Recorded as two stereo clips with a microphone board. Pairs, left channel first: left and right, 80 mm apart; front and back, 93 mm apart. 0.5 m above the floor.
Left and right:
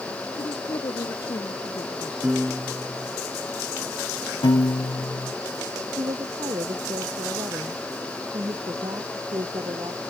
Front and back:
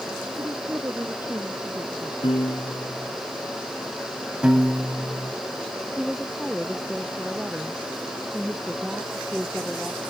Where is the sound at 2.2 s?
15° right.